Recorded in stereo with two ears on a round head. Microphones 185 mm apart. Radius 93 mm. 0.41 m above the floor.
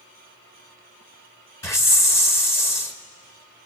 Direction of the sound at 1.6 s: 15° left (ahead or behind).